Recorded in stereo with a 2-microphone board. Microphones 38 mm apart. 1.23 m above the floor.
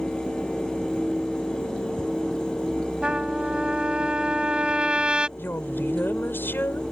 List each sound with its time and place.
3.0 s a trumpet: 25° right (ahead or behind)
5.4 s a woman speaking: 60° left (ahead or behind)